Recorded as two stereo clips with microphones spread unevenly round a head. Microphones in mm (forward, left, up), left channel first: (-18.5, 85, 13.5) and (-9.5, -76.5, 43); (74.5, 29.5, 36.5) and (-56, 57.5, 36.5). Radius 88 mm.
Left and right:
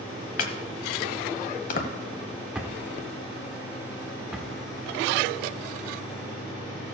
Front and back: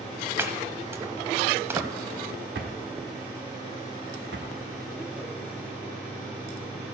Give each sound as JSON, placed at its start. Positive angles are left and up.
{"t": 0.4, "sound": "chopping", "azimuth_deg": 110, "distance_m": 1.0}
{"t": 2.5, "sound": "a drawer", "azimuth_deg": -165, "distance_m": 1.3}